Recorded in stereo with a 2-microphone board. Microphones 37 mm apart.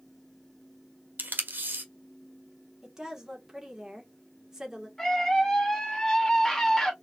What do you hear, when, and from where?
1.2 s tape being pulled: 65° right (ahead or behind), 1.5 m
2.8 s a woman speaking: 15° right (ahead or behind), 1.9 m
5.0 s a scream: 10° left (ahead or behind), 2.5 m